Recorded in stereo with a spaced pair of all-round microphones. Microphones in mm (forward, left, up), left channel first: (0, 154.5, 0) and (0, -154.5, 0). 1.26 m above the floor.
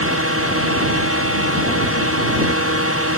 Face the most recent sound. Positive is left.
turn(degrees=-45)  # may be behind; listen again after turning